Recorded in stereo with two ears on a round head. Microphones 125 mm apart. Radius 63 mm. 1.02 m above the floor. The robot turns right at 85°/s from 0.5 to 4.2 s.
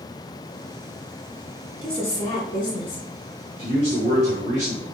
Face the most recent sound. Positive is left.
turn(degrees=-45)